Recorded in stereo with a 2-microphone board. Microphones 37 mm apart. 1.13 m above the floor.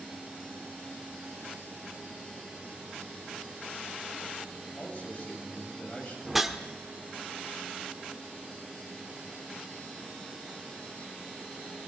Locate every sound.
4.8 s a man speaking: 35° left (ahead or behind), 8 m
6.2 s a whoosh: 5° right (ahead or behind), 1.2 m